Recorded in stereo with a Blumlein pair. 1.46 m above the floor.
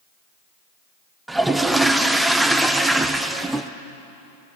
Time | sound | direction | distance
1.3 | a toilet flushing | 5° right | 0.5 m